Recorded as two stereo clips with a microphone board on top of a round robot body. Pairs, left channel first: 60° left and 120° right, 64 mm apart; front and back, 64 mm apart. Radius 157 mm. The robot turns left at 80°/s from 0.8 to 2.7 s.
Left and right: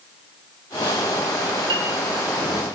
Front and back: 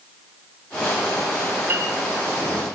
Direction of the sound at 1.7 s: 115° right.